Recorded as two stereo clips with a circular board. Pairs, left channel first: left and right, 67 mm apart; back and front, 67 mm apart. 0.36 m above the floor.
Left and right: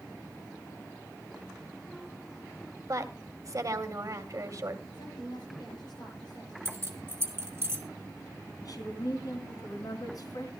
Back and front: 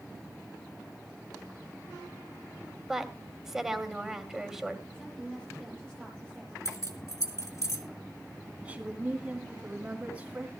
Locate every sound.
2.9 s a woman speaking: 80° right, 2 m
4.9 s a woman speaking: 105° left, 8.5 m
6.7 s keys jangling: 140° right, 3 m
8.6 s a woman speaking: 70° left, 4 m